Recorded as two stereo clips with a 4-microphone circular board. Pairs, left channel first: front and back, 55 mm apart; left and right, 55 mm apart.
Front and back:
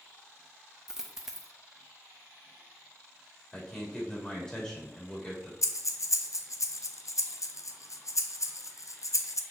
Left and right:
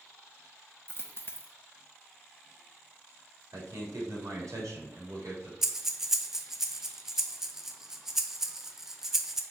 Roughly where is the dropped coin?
Left.